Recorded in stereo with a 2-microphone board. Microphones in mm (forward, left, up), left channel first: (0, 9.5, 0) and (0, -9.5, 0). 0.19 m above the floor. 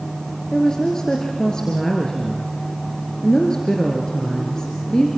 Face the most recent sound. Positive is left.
turn(degrees=40)  # may be behind; listen again after turning